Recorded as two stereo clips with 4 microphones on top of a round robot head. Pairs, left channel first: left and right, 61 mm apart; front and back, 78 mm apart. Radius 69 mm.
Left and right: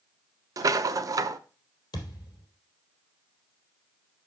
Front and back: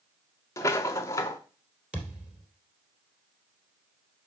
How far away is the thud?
About 3 m.